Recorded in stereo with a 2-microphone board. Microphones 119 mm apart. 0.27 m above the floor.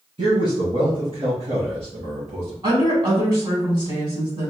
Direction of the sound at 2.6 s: 40° right (ahead or behind).